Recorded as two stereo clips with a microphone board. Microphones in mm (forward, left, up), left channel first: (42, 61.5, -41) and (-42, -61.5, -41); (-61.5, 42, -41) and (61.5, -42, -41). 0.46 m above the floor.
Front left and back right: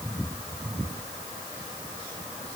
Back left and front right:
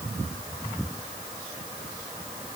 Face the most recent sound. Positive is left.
No sound to turn to.